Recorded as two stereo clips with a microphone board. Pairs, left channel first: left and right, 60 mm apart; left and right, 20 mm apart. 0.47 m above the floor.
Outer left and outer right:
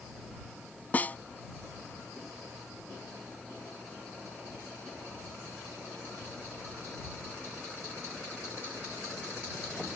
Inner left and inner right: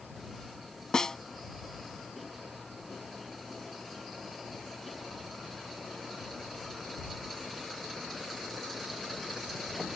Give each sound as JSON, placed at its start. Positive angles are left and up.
{"t": 0.9, "sound": "a snare drum", "side_deg": 30}